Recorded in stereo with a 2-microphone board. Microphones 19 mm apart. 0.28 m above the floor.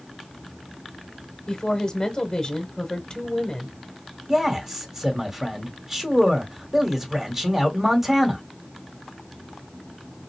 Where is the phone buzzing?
No phone buzzing in this recording.